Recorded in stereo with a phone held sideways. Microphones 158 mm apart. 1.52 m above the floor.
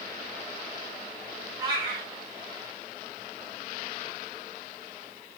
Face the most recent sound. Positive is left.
turn(degrees=-25)  # may be behind; listen again after turning